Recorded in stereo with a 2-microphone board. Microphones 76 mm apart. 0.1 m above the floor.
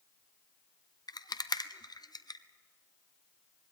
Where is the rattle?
65° left (ahead or behind), 0.7 m.